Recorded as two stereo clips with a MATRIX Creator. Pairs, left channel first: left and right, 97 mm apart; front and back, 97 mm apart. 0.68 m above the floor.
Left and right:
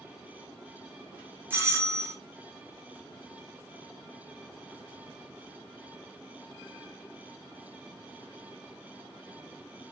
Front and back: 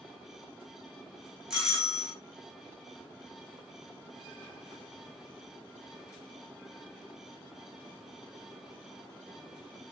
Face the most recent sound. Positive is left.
turn(degrees=-105)